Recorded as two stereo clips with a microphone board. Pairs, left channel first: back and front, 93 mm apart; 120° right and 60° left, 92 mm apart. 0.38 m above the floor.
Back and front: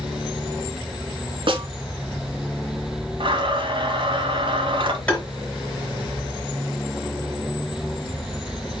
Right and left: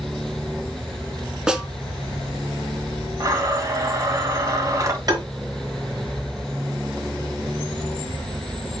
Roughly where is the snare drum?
Ahead.